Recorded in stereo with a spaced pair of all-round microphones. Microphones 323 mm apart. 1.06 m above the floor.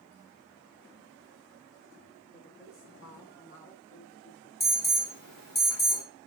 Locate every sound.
2.3 s a woman speaking: 25° left (ahead or behind), 4 m
4.6 s an alarm: 80° left, 3 m